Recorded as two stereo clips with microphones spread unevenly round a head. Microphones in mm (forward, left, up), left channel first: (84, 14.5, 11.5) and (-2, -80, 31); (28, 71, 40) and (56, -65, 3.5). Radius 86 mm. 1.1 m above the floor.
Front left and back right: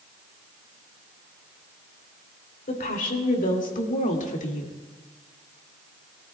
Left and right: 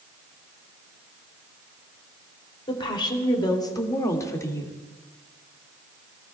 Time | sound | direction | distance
2.7 | a woman speaking | 40° left | 2.5 m